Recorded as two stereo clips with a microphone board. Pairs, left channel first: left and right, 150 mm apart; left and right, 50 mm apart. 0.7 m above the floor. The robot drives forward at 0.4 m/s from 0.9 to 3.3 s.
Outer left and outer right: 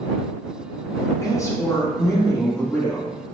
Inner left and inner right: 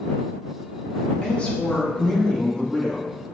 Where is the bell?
No bell in this recording.